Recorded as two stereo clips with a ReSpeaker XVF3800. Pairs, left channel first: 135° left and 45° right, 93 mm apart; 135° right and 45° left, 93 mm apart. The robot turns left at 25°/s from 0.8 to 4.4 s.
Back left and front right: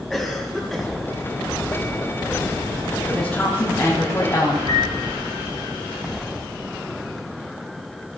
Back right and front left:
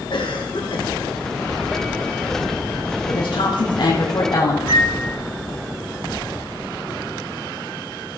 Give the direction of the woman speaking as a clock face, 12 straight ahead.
5 o'clock.